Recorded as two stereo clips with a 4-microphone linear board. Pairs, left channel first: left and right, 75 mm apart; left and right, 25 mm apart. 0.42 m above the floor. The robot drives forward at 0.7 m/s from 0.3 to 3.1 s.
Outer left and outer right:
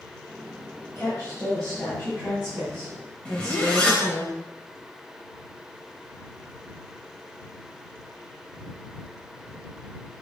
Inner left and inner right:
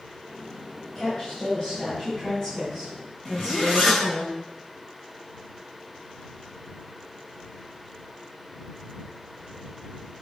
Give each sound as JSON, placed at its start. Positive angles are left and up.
{"t": 0.9, "sound": "a woman speaking", "side_deg": 20, "distance_m": 2.0}
{"t": 3.2, "sound": "a zipper", "side_deg": 15, "distance_m": 1.6}